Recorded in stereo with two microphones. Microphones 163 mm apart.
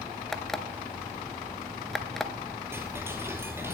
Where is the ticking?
15° right (ahead or behind), 1.5 m.